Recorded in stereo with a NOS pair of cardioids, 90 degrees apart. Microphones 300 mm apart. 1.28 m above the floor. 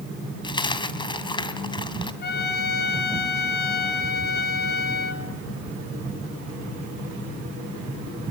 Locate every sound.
0.4 s a dropped coin: 15° left, 3 m
2.2 s a trumpet: 35° left, 5.5 m